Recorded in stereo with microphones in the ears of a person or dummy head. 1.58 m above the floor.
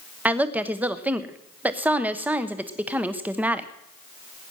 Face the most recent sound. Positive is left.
turn(degrees=-5)  # may be behind; listen again after turning